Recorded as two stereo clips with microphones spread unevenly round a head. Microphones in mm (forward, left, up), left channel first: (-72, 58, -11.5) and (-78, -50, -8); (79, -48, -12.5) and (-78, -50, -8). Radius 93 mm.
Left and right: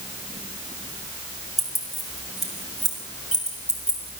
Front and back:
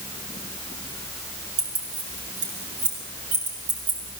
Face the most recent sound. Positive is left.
turn(degrees=170)